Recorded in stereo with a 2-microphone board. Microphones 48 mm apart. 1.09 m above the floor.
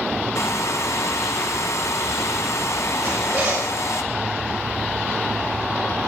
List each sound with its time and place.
0.3 s a hair dryer: 80° left, 1.3 m
3.0 s a zipper: 50° right (ahead or behind), 7 m